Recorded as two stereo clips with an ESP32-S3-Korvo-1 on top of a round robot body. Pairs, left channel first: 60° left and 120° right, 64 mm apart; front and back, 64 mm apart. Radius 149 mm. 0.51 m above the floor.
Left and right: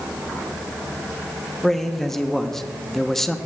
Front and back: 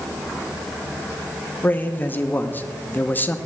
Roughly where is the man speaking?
Ahead.